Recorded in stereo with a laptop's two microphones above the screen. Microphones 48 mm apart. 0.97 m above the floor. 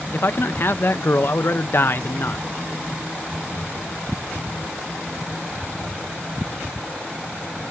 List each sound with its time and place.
0.1 s a man speaking: 50° left (ahead or behind), 0.6 m